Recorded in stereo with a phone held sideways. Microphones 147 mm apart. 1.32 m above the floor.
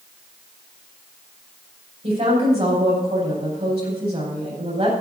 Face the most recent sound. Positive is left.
turn(degrees=-45)  # may be behind; listen again after turning